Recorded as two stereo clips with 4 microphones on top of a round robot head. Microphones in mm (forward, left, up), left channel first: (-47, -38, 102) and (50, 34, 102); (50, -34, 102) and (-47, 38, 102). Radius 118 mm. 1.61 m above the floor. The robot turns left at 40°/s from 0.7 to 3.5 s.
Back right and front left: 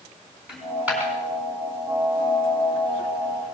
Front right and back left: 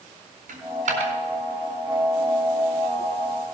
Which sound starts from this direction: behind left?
A dropped coin, at 0.5 s.